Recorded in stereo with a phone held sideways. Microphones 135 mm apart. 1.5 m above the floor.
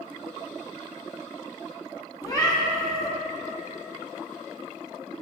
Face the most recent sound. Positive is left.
turn(degrees=25)  # may be behind; listen again after turning